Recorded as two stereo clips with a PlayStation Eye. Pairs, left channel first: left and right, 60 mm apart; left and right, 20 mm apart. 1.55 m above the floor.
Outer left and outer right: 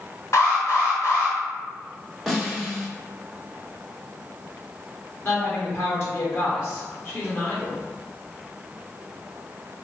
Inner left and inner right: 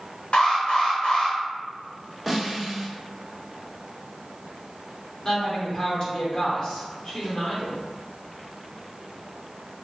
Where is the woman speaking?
45° left (ahead or behind), 1.6 m.